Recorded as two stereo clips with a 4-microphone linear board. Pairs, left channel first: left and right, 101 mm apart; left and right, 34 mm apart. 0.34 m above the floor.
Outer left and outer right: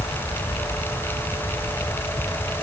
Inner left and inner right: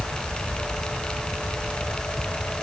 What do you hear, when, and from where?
Only background noise.